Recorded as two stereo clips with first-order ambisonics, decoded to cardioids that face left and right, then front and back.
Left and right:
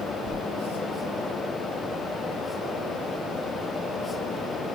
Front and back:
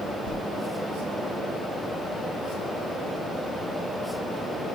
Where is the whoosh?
30° left, 4.5 m.